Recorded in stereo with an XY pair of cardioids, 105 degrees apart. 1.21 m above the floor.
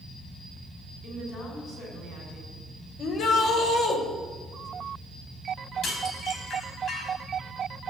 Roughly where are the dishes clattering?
Ahead left.